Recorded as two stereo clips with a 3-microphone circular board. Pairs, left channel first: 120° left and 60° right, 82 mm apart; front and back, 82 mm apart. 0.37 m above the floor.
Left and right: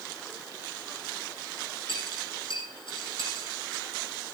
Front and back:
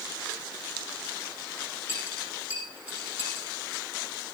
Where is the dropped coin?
110° left, 7.5 m.